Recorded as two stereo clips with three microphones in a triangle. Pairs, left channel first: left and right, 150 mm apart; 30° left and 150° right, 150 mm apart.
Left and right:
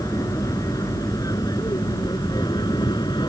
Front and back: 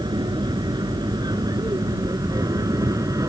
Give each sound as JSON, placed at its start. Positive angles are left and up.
{"t": 0.0, "sound": "an aircraft", "azimuth_deg": 155}